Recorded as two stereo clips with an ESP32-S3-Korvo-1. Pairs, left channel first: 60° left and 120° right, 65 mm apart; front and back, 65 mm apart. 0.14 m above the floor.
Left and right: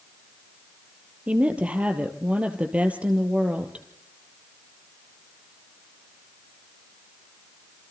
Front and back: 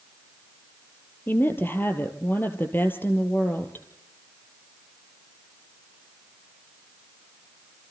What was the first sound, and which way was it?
A woman speaking, 55° right.